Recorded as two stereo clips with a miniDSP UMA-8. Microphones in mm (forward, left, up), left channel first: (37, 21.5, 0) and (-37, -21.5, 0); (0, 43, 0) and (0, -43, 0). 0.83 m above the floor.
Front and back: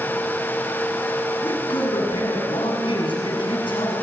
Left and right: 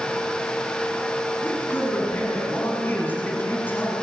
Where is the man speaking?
20° left, 7.5 m.